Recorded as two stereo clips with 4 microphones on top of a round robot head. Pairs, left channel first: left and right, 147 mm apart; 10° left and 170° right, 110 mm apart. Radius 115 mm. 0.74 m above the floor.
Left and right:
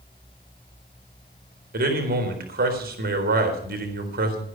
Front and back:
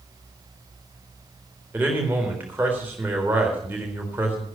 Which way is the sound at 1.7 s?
95° right.